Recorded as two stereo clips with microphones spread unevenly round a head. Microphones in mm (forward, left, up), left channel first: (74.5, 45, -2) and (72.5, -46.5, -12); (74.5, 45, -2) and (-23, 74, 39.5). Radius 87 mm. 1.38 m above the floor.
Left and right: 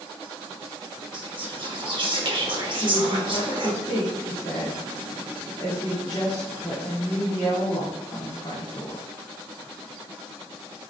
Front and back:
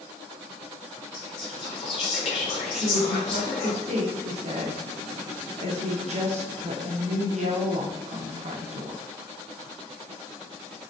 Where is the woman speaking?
155° left, 0.9 m.